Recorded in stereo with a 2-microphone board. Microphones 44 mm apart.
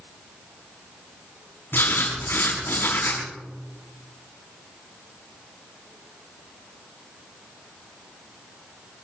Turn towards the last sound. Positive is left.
turn(degrees=55)  # may be behind; listen again after turning